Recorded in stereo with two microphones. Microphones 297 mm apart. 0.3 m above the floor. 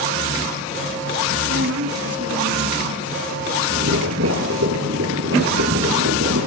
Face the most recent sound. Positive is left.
turn(degrees=-55)  # may be behind; listen again after turning